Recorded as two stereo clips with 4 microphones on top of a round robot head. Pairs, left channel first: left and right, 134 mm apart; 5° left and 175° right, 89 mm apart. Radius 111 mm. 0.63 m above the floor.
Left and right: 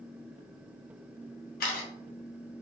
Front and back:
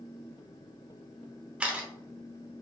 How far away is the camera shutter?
About 0.9 m.